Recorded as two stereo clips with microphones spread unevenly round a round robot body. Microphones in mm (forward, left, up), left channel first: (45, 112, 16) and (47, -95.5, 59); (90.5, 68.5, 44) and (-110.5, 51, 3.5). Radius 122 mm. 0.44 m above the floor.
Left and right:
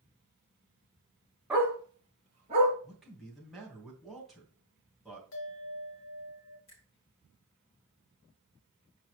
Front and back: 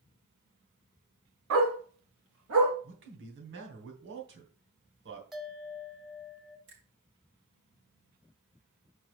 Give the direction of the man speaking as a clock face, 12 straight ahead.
6 o'clock.